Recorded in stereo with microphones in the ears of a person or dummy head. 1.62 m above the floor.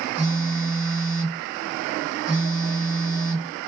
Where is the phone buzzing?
20° left (ahead or behind), 2 m.